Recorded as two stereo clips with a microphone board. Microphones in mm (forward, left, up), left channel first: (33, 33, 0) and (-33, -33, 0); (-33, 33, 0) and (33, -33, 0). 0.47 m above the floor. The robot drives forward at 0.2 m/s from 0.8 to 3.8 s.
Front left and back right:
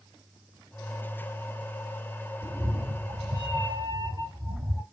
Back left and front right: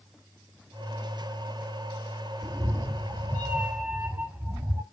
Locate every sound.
2.4 s a cat meowing: 75° right, 0.6 m; by 4.8 s 105° right, 0.6 m